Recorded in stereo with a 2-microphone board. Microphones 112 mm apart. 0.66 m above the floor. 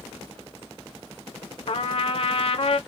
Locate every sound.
1.7 s a trumpet: 55° left (ahead or behind), 0.5 m